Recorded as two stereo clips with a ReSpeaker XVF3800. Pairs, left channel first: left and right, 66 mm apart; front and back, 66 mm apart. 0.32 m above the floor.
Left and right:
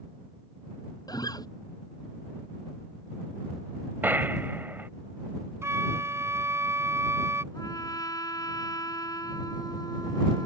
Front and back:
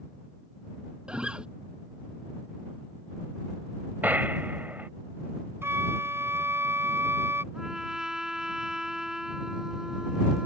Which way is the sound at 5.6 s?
130° right.